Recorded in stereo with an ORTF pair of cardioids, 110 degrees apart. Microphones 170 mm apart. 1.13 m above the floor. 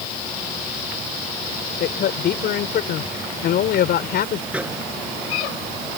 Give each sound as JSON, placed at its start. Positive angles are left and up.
{"t": 1.8, "sound": "a man speaking", "azimuth_deg": 65}
{"t": 4.5, "sound": "a microwave", "azimuth_deg": -5}